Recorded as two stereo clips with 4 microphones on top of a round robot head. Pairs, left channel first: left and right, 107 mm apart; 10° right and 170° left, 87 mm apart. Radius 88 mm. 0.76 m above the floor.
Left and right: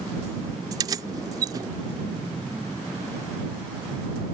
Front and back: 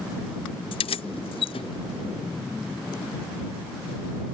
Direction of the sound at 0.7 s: 30° right.